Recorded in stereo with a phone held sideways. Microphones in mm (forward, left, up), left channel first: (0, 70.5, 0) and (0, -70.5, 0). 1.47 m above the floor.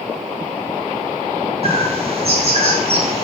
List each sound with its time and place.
1.6 s a bird: 50° right (ahead or behind), 2.5 m